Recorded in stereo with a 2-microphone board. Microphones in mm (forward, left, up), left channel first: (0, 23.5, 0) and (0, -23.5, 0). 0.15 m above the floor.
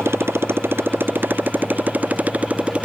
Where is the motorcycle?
65° right (ahead or behind); by 2.9 s 30° right (ahead or behind).